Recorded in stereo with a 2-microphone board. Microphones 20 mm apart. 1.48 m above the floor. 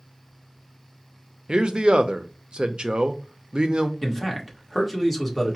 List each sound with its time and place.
1.5 s a man speaking: 50° right (ahead or behind), 0.5 m
4.0 s a man speaking: centre (ahead or behind), 1.5 m